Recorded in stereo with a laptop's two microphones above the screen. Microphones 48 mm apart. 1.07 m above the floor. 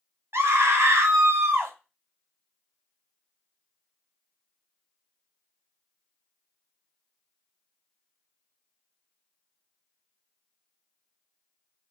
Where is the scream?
65° right (ahead or behind), 0.9 m.